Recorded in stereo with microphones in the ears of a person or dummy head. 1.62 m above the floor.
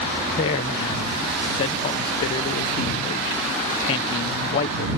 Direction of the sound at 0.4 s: 25° left (ahead or behind).